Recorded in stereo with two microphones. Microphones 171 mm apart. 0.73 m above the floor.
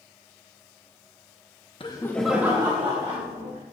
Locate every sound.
1.8 s laughter: 30° left (ahead or behind), 0.9 m; by 3.6 s 50° right (ahead or behind), 1.9 m